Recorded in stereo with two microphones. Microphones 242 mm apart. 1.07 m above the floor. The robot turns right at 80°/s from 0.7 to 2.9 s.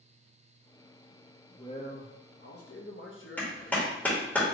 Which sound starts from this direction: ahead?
A man speaking, at 1.5 s.